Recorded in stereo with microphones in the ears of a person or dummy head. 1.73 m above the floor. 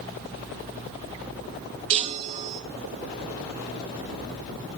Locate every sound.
1.9 s a chime: 35° right (ahead or behind), 0.8 m